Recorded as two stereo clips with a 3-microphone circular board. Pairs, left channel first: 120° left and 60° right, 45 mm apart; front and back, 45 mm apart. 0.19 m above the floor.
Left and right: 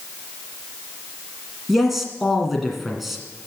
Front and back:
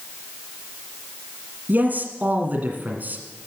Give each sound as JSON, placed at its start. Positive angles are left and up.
{"t": 1.7, "sound": "a man speaking", "azimuth_deg": -145, "distance_m": 1.8}